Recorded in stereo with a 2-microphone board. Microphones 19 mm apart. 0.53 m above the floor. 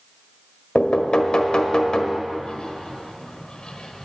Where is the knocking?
55° left (ahead or behind), 1.3 m.